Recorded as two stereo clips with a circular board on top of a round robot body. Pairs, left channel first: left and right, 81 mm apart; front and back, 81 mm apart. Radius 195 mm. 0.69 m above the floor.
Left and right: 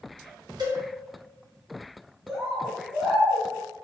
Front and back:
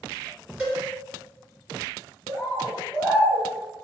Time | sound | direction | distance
0.6 | a cowbell | 105° right | 1.4 m
2.3 | a bird | 30° right | 1.5 m